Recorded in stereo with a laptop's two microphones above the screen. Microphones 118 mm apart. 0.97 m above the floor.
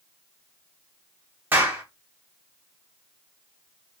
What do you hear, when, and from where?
1.5 s a clap: 15° right (ahead or behind), 0.8 m